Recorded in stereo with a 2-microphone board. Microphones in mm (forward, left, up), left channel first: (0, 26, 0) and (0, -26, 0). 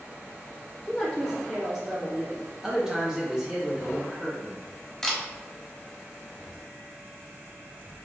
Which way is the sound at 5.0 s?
5° left (ahead or behind).